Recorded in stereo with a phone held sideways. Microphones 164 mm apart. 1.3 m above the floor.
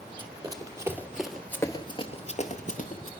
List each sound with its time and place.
0.2 s running footsteps: 25° right (ahead or behind), 2.5 m; by 3.1 s 50° left (ahead or behind), 2.5 m